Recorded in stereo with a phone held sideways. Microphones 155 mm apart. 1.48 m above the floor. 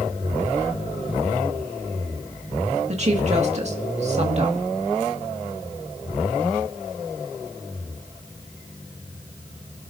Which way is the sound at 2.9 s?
45° right (ahead or behind).